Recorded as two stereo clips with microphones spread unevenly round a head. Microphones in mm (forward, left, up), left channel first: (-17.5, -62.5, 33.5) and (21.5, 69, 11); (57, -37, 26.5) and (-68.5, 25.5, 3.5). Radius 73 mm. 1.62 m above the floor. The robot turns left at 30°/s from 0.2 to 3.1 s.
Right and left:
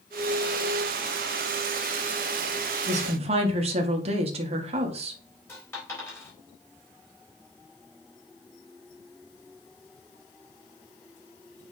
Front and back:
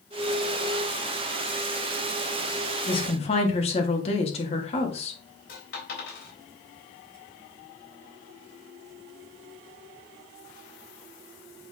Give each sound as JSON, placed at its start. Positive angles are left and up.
{"t": 2.9, "sound": "a woman speaking", "azimuth_deg": 30, "distance_m": 1.7}
{"t": 5.5, "sound": "a dropped coin", "azimuth_deg": -35, "distance_m": 4.0}